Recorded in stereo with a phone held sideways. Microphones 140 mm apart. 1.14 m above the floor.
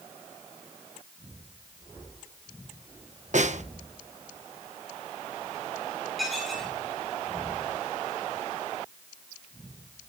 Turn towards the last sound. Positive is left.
turn(degrees=0)  # may be behind; listen again after turning